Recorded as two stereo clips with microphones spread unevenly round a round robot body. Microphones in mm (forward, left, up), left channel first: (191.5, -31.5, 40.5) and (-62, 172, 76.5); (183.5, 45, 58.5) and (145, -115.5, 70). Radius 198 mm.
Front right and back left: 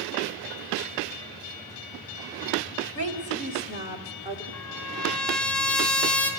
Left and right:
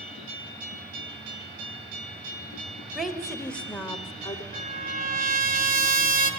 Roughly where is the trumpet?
Right.